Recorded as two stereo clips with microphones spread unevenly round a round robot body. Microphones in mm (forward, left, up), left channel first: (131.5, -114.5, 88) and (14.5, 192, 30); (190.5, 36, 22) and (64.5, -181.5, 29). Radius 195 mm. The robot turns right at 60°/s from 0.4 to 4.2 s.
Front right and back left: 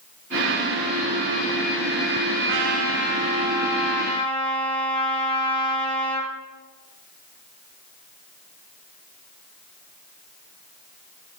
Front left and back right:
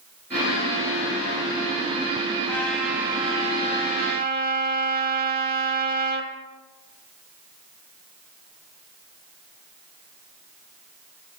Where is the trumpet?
135° left, 0.9 m; by 6.3 s 120° right, 0.9 m.